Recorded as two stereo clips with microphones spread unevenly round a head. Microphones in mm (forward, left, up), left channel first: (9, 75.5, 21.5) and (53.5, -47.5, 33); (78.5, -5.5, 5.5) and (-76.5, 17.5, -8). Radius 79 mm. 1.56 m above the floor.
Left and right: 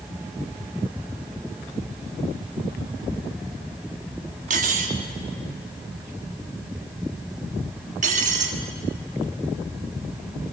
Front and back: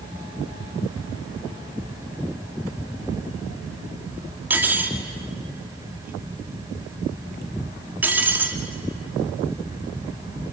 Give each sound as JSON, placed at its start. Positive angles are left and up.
{"t": 4.5, "sound": "cutlery clinking", "azimuth_deg": -110, "distance_m": 1.7}